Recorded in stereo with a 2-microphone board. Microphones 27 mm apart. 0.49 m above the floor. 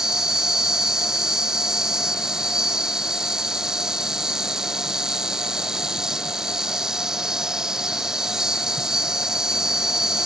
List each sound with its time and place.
0.0 s an insect: 20° right (ahead or behind)